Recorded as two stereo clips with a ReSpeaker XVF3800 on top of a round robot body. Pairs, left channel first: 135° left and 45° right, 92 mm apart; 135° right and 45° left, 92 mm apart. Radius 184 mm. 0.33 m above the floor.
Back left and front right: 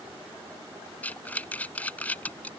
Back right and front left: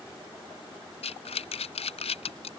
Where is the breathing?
150° right.